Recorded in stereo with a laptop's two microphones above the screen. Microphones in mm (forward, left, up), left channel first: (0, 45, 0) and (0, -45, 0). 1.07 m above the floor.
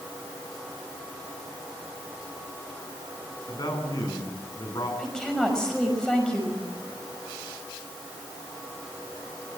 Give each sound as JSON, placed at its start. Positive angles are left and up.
{"t": 3.5, "sound": "a man speaking", "side_deg": 50, "distance_m": 10.0}
{"t": 5.0, "sound": "a woman speaking", "side_deg": 10, "distance_m": 5.5}